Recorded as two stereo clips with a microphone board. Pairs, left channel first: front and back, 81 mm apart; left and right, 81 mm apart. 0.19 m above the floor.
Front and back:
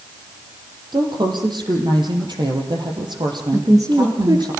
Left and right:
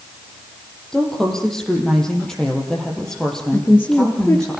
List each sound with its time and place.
0.9 s a woman speaking: 175° left, 6 m
3.5 s a woman speaking: 150° left, 4 m